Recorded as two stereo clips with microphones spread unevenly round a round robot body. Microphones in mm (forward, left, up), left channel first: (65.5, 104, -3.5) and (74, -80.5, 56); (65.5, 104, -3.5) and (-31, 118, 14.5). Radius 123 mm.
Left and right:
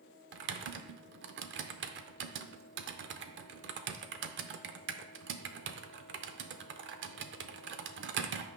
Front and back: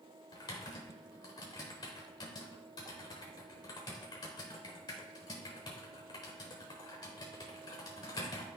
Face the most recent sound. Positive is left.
turn(degrees=-60)